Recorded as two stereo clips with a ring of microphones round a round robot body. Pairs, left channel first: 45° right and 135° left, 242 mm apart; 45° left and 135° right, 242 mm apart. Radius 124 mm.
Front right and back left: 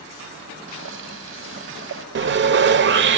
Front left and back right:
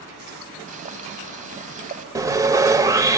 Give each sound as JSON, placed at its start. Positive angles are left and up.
{"t": 0.7, "sound": "boiling", "azimuth_deg": 170, "distance_m": 1.7}
{"t": 2.1, "sound": "sawing", "azimuth_deg": 150, "distance_m": 0.8}